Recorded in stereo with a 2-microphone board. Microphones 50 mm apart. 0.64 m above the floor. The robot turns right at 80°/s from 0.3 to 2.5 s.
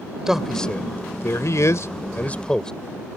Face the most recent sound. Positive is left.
turn(degrees=15)  # may be behind; listen again after turning